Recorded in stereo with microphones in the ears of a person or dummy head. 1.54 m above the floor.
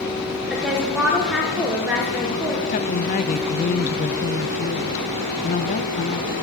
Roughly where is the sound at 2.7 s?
Left.